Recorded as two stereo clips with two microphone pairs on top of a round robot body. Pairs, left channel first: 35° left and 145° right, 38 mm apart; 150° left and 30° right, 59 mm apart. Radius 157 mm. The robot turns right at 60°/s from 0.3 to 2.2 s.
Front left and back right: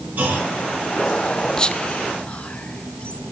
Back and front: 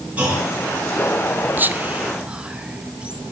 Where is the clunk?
100° right, 4.5 m; by 0.5 s 85° right, 4.5 m.